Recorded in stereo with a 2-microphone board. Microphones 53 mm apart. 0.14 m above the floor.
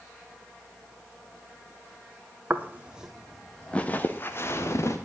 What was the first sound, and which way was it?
Footsteps, 35° right (ahead or behind).